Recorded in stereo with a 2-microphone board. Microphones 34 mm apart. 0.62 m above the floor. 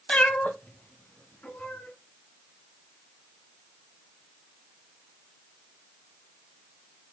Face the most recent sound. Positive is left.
turn(degrees=60)  # may be behind; listen again after turning